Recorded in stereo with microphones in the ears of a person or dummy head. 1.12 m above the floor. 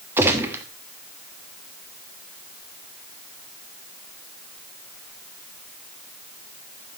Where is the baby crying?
I don't hear a baby crying.